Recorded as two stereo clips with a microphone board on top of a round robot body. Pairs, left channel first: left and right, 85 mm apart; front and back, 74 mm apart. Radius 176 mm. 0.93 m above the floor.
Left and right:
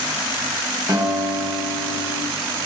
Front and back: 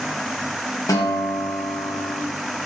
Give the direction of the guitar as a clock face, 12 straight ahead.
1 o'clock.